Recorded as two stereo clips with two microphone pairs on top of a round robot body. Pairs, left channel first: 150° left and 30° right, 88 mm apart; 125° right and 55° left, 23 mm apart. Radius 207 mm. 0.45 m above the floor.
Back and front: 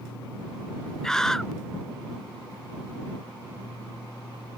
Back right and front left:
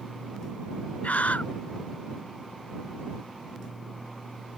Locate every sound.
1.0 s a scream: 125° right